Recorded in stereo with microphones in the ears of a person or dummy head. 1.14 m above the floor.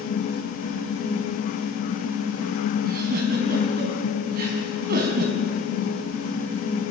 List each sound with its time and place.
2.8 s a giggle: 55° right (ahead or behind), 4 m